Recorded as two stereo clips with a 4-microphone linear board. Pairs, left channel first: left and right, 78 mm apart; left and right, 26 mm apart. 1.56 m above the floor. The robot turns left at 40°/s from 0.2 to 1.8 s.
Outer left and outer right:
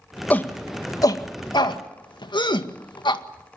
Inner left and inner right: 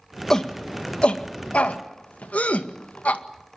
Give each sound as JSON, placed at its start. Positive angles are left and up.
{"t": 0.3, "sound": "a shout", "side_deg": 20, "distance_m": 1.8}